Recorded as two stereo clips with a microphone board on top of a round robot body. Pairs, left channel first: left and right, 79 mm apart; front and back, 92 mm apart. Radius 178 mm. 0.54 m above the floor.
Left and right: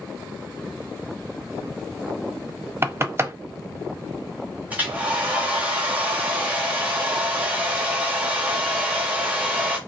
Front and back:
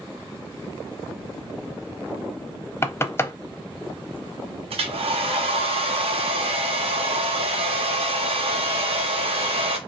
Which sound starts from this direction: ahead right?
Knocking, at 2.8 s.